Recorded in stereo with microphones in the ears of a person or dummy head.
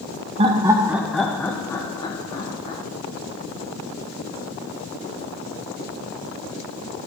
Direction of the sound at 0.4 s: 30° right (ahead or behind).